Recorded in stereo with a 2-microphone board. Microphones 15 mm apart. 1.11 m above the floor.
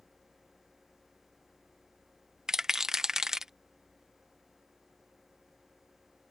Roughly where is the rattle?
Right.